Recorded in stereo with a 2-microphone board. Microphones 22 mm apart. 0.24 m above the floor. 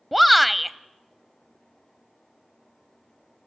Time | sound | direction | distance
0.1 | a shout | centre (ahead or behind) | 0.9 m